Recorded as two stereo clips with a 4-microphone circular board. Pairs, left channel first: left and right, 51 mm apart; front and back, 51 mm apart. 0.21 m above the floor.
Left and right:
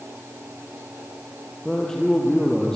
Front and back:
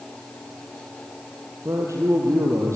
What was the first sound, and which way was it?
A man speaking, 170° left.